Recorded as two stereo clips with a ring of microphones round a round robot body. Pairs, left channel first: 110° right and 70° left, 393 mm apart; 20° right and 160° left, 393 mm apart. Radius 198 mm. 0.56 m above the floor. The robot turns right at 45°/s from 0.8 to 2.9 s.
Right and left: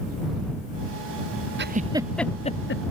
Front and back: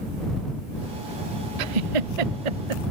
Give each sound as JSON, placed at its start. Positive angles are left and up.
{"t": 1.6, "sound": "a giggle", "azimuth_deg": 130}